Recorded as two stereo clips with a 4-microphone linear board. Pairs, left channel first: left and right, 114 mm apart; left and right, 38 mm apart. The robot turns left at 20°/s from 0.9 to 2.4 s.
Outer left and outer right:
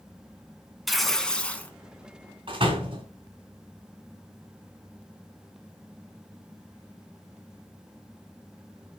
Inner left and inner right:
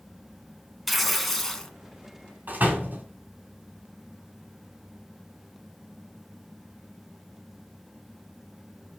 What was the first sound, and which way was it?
Tearing paper, centre (ahead or behind).